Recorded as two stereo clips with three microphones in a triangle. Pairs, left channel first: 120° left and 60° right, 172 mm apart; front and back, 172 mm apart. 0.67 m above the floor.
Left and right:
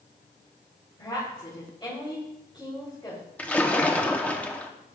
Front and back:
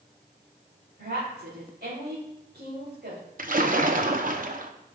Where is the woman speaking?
Straight behind, 3 m.